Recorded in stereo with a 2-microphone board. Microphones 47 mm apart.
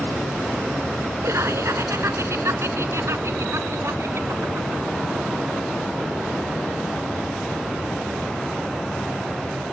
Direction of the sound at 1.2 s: 70° right (ahead or behind).